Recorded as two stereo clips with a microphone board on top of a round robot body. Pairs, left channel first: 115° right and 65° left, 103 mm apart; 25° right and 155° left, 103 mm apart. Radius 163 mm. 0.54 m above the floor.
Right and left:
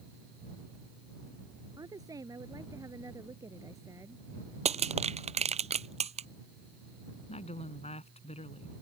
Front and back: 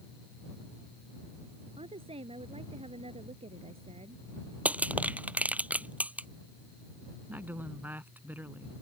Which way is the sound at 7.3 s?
130° right.